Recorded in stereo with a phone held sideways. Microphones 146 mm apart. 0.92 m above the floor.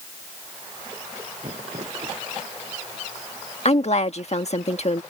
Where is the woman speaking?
50° left (ahead or behind).